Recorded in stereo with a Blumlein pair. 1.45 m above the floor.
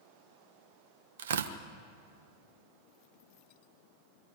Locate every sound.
1.2 s tearing paper: 60° right, 1.1 m